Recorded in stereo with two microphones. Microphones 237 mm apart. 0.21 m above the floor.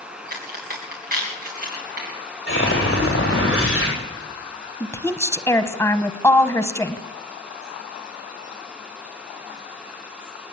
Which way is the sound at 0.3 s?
35° right (ahead or behind).